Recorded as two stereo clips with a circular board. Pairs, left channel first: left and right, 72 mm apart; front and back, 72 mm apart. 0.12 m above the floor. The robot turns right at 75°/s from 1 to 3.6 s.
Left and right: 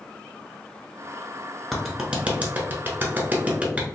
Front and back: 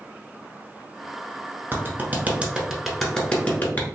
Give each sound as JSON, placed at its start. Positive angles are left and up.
{"t": 1.7, "sound": "a clap", "azimuth_deg": 175, "distance_m": 0.9}